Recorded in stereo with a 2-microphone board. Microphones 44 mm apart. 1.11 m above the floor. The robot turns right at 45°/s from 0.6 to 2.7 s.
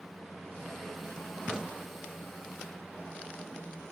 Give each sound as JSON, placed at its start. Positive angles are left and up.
{"t": 1.5, "sound": "a crack", "side_deg": -15, "distance_m": 0.8}